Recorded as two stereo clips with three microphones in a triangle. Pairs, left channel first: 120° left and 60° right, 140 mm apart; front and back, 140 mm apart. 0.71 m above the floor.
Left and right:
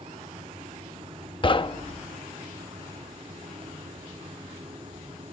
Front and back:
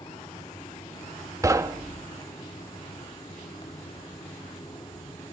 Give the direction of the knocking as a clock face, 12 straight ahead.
8 o'clock.